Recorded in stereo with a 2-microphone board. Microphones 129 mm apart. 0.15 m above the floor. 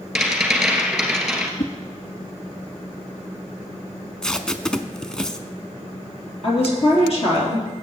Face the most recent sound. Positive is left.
turn(degrees=50)  # may be behind; listen again after turning